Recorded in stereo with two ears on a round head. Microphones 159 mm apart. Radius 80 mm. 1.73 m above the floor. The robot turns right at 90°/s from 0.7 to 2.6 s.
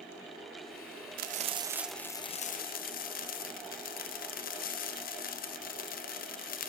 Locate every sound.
1.2 s frying: 65° right, 1.1 m; by 6.7 s 65° left, 1.1 m